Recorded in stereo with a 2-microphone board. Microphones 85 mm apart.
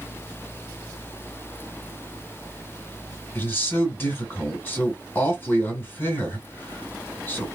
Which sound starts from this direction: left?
A man speaking, at 3.4 s.